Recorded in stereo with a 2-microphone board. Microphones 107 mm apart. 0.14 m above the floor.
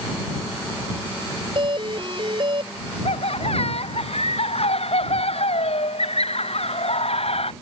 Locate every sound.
1.6 s a doorbell: 50° right (ahead or behind)
3.0 s laughter: 65° left (ahead or behind)